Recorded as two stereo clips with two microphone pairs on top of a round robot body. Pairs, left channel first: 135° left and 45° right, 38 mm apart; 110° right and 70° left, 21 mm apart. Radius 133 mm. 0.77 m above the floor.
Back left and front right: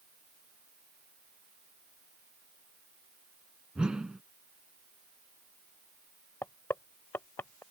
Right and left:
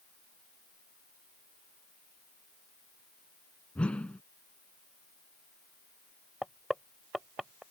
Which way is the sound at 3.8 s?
115° right.